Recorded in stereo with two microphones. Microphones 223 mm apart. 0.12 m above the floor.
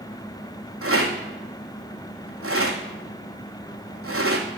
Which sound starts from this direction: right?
A rattle, at 0.8 s.